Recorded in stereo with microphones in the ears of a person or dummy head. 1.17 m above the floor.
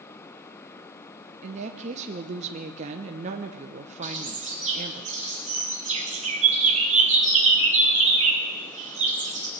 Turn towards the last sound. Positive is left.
turn(degrees=-40)  # may be behind; listen again after turning